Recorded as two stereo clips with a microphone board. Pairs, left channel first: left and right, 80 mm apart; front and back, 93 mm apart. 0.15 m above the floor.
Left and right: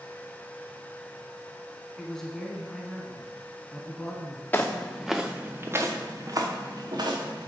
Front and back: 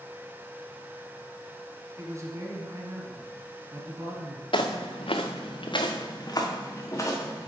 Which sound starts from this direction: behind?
A man speaking, at 2.0 s.